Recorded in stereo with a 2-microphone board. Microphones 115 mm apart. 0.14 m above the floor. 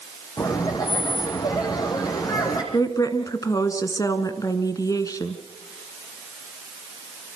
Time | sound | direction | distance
0.4 | laughter | 35° left (ahead or behind) | 6 m
2.7 | a woman speaking | 30° left (ahead or behind) | 1.6 m